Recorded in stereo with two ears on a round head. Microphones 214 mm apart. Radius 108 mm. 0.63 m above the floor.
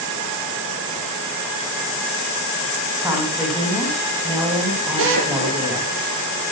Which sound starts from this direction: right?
A drill, at 5.0 s.